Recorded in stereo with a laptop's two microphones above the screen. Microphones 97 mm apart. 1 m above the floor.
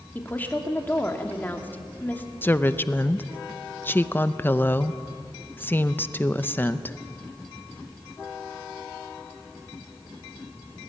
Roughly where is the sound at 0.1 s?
Centre.